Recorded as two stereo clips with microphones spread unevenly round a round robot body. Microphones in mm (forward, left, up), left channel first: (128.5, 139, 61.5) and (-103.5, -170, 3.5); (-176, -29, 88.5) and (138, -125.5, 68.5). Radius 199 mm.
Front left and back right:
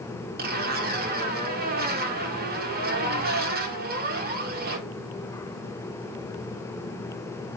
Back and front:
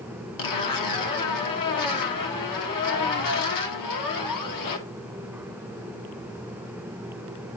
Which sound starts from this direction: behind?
A zipper, at 0.4 s.